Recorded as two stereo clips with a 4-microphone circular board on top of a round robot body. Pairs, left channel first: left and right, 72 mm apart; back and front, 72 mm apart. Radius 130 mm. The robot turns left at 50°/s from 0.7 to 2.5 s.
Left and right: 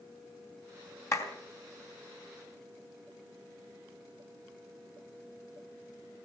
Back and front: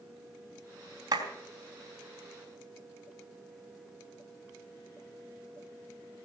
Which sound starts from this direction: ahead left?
A clap, at 1.1 s.